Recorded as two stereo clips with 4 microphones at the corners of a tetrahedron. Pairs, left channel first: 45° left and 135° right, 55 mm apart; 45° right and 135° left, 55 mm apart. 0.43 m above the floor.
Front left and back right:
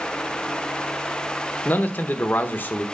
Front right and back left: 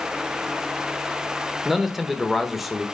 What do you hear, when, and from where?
1.6 s a man speaking: 50° left, 0.9 m